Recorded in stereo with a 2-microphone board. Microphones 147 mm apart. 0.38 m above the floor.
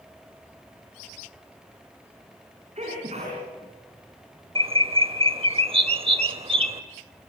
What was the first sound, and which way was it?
A sneeze, 50° right (ahead or behind).